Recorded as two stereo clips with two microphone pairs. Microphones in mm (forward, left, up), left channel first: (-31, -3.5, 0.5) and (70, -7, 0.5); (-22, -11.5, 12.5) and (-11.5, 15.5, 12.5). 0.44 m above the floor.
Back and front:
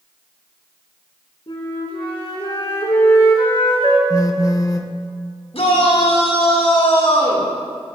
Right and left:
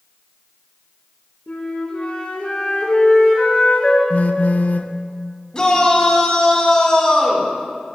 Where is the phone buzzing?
125° right, 0.5 m.